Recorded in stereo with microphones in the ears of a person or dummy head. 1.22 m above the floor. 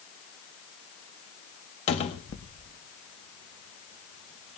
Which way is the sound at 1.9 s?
35° left (ahead or behind).